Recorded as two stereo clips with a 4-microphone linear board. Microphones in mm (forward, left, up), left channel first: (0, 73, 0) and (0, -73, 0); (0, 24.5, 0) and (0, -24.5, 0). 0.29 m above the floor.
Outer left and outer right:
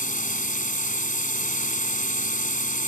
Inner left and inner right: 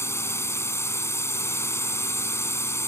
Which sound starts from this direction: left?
A drone, at 0.0 s.